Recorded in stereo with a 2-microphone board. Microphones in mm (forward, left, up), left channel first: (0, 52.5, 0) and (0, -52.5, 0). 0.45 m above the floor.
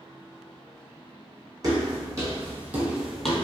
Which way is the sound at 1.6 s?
40° right (ahead or behind).